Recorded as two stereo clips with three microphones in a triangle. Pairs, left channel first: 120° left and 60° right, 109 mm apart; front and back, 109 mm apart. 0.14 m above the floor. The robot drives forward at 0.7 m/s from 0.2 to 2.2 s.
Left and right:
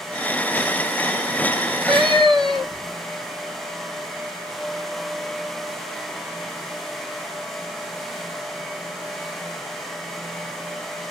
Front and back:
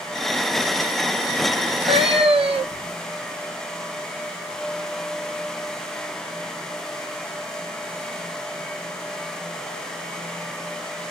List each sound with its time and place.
1.6 s a cat meowing: 140° right, 1.0 m; by 3.0 s 150° right, 1.3 m